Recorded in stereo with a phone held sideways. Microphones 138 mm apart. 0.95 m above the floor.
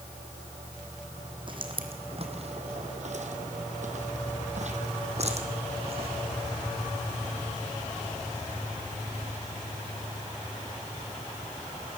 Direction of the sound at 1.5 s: 35° right (ahead or behind).